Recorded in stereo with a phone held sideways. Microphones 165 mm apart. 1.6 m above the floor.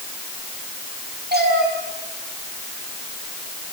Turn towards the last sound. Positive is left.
turn(degrees=-75)  # may be behind; listen again after turning